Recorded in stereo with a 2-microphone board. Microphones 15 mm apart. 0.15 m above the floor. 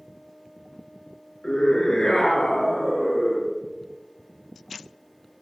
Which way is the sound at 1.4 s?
50° left (ahead or behind).